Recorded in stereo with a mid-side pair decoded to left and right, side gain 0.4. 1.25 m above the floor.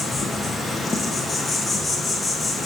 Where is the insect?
30° left, 0.8 m.